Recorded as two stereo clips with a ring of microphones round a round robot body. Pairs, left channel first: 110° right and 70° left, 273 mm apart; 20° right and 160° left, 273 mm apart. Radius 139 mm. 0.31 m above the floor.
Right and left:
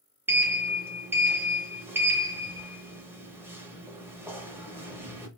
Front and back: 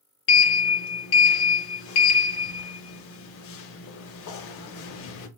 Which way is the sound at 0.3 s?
10° right.